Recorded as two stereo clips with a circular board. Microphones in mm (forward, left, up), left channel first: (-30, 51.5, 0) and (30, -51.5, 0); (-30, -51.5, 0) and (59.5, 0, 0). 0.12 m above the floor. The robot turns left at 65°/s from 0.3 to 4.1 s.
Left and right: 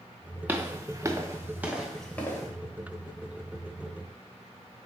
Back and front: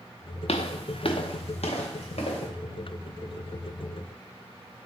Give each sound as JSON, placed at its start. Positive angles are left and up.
{"t": 0.5, "sound": "footsteps", "azimuth_deg": -135, "distance_m": 0.6}